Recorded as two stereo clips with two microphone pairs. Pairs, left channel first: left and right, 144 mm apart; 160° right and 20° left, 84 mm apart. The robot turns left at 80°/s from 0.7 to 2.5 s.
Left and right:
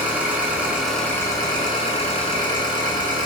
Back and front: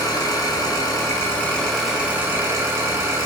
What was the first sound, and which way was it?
An engine running, 165° right.